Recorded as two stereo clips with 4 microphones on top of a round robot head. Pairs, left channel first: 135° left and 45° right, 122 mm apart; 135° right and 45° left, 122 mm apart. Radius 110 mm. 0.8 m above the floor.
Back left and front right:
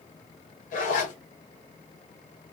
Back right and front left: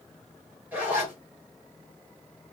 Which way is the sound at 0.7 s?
125° left.